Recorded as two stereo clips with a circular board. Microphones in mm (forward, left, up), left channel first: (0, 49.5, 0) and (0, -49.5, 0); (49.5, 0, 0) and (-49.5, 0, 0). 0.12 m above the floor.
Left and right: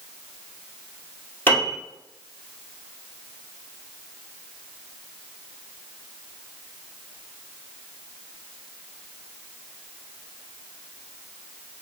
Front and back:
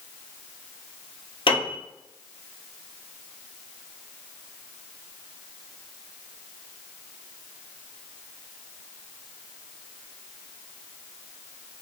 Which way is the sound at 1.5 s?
20° left.